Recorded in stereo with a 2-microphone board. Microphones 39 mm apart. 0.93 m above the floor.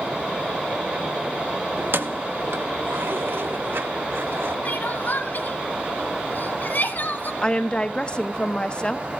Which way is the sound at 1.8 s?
70° right (ahead or behind).